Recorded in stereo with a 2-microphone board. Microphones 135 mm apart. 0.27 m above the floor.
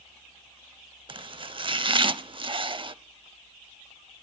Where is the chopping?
40° right (ahead or behind), 0.5 m.